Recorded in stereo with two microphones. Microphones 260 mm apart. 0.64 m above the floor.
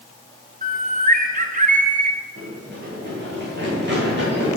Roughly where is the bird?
Right.